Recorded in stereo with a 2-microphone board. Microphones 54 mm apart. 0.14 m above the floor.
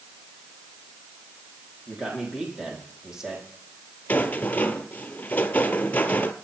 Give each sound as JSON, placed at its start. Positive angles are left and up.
{"t": 1.9, "sound": "a man speaking", "side_deg": -15, "distance_m": 6.0}
{"t": 4.1, "sound": "a rattle", "side_deg": 30, "distance_m": 1.2}